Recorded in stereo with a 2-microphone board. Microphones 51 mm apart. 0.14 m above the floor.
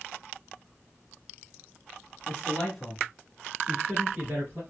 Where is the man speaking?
20° left (ahead or behind), 1.2 m; by 4.6 s 40° right (ahead or behind), 2 m.